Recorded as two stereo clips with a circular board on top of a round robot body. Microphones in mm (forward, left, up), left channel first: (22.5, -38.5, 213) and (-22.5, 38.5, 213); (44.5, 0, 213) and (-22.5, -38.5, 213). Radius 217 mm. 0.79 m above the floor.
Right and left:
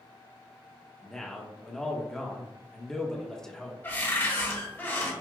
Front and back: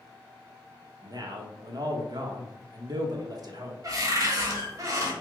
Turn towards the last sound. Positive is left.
turn(degrees=-120)